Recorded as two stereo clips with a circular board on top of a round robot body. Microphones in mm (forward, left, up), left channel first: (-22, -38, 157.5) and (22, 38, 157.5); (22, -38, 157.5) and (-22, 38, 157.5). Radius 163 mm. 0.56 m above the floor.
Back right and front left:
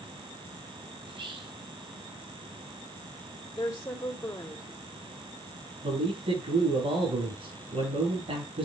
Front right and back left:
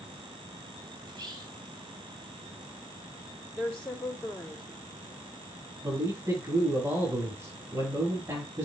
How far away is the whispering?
About 3.5 m.